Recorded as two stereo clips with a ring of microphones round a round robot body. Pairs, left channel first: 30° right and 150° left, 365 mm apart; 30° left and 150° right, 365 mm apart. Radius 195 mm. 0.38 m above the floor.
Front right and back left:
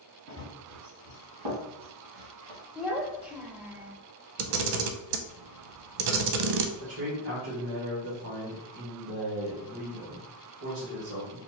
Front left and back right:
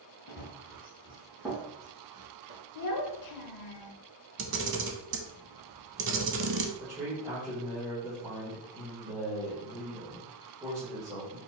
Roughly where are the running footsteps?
Left.